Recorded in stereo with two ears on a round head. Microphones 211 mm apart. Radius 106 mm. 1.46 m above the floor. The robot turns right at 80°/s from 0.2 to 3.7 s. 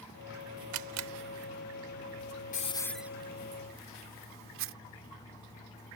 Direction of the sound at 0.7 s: 85° right.